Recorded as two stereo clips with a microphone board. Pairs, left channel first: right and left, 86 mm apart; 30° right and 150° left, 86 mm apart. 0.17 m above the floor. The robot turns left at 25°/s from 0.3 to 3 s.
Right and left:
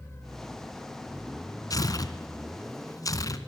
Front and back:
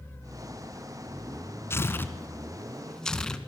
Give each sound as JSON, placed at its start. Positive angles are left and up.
{"t": 1.7, "sound": "tearing paper", "azimuth_deg": -75, "distance_m": 1.5}